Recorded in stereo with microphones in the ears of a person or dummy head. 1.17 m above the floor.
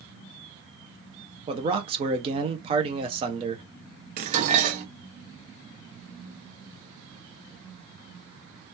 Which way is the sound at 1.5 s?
20° right (ahead or behind).